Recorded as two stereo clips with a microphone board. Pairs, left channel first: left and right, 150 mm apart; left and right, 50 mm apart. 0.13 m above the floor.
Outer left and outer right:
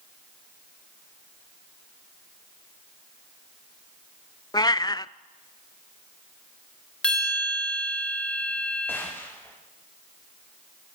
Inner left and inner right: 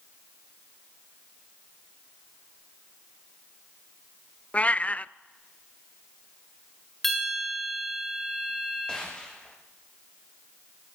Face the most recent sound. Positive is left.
turn(degrees=15)  # may be behind; listen again after turning